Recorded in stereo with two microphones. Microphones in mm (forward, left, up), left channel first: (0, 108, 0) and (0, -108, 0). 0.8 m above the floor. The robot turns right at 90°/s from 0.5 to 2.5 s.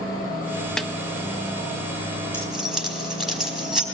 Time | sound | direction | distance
0.8 | a snare drum | 5° left (ahead or behind) | 0.7 m
2.3 | keys jangling | 15° left (ahead or behind) | 3.5 m